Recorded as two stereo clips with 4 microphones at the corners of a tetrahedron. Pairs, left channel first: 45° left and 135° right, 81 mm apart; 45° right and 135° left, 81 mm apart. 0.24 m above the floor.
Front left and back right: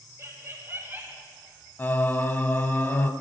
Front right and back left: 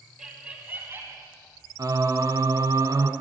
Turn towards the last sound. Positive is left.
turn(degrees=105)